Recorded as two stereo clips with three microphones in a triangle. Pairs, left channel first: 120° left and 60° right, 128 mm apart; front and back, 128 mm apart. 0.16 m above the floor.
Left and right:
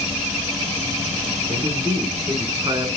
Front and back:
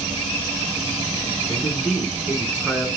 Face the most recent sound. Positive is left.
turn(degrees=-95)